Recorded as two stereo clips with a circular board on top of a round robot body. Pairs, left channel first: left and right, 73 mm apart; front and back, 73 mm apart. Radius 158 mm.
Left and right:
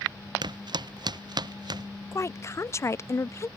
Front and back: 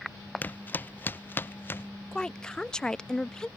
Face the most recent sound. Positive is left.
turn(degrees=75)